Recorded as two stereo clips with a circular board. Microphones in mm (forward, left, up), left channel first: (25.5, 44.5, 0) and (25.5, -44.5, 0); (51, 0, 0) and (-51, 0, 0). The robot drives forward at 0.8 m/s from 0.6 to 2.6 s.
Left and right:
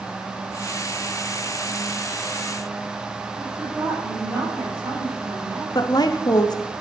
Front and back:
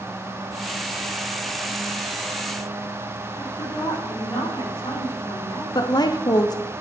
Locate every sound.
3.4 s a woman speaking: 35° right, 4.5 m
5.8 s a woman speaking: 50° left, 0.9 m